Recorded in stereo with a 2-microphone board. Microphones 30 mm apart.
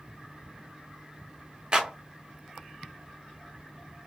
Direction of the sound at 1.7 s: 30° right (ahead or behind).